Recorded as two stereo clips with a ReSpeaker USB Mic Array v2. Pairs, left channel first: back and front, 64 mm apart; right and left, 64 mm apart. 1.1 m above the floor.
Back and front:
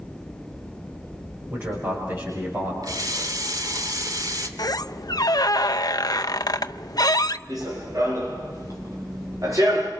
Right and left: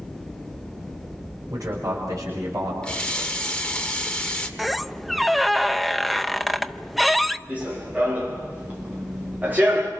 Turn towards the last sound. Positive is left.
turn(degrees=30)